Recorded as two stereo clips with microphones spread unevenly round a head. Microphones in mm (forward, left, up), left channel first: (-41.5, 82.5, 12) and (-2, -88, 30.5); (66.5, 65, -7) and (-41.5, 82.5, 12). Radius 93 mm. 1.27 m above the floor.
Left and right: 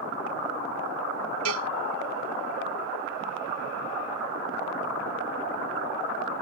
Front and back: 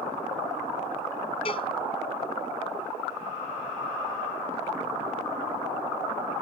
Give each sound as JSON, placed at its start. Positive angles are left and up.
{"t": 1.4, "sound": "a cowbell", "azimuth_deg": -75}